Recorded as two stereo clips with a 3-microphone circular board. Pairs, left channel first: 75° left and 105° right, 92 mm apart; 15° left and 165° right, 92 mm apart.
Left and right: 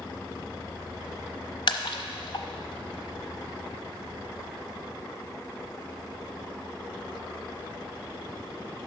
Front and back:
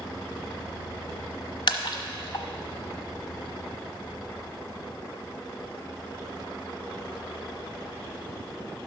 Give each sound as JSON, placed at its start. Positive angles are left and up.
{"t": 1.7, "sound": "a splash", "azimuth_deg": 45, "distance_m": 0.9}